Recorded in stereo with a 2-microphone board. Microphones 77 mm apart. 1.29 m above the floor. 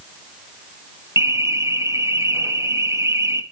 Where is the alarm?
35° right (ahead or behind), 1.1 m.